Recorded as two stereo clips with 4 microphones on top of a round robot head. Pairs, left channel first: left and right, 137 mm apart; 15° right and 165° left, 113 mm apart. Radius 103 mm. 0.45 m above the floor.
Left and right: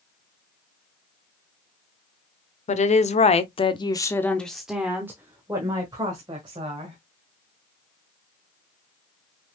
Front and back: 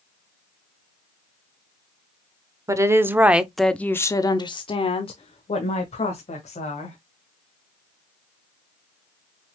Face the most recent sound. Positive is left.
turn(degrees=-35)